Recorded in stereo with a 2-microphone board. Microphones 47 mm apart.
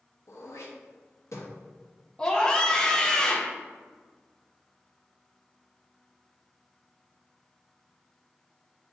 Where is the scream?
15° left (ahead or behind), 0.7 m.